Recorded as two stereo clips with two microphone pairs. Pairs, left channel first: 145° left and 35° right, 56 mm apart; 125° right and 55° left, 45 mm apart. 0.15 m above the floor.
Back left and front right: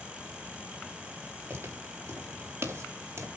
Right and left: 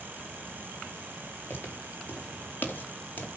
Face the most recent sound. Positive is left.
turn(degrees=-75)